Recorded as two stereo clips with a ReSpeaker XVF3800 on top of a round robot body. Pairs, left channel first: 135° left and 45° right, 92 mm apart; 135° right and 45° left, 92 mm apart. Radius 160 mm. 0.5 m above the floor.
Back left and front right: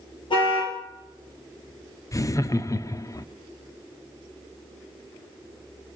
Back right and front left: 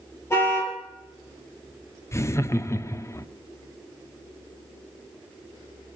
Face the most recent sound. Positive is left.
turn(degrees=175)